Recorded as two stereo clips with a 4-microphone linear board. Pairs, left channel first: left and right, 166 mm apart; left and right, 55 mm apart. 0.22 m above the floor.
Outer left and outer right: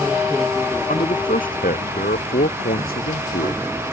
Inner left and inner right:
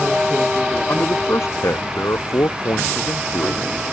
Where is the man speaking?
55° left (ahead or behind); by 3.7 s 65° left (ahead or behind).